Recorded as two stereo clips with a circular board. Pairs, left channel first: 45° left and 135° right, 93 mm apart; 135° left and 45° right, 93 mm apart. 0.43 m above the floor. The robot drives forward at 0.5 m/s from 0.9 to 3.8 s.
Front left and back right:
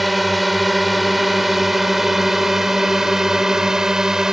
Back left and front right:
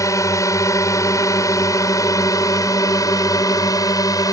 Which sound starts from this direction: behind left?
A drone, at 0.0 s.